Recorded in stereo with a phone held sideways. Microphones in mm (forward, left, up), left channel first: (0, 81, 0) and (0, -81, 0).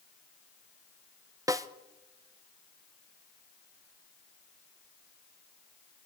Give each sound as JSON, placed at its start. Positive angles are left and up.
{"t": 1.5, "sound": "a snare drum", "side_deg": -20, "distance_m": 0.6}